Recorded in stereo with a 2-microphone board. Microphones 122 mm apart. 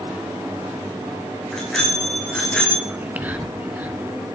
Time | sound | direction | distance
1.5 | a bicycle bell | 5° left (ahead or behind) | 7.5 m
2.9 | whispering | 15° right (ahead or behind) | 1.3 m